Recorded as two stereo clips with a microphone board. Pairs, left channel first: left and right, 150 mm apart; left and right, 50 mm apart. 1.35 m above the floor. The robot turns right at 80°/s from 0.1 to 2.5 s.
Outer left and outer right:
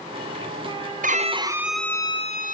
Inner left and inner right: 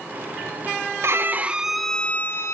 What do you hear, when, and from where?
1.0 s a violin: 60° right, 1.0 m; by 2.5 s 60° left, 1.0 m